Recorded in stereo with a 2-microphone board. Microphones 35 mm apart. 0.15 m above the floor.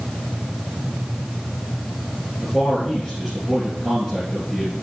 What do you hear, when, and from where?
2.4 s a man speaking: 15° left (ahead or behind), 3 m